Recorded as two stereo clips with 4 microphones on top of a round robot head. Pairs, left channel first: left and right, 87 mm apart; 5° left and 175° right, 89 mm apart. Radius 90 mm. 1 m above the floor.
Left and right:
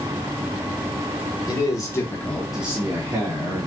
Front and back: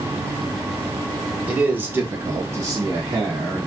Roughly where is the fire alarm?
I don't hear a fire alarm.